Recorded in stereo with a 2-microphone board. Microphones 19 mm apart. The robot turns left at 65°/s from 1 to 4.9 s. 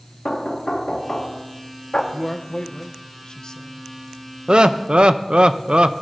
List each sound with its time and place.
0.2 s knocking: 145° left, 1.0 m; by 2.0 s 80° left, 1.0 m
2.1 s a man speaking: 20° left (ahead or behind), 0.7 m; by 3.9 s 25° left (ahead or behind), 0.7 m
4.5 s laughter: 55° right (ahead or behind), 0.5 m; by 6.0 s 60° right (ahead or behind), 0.5 m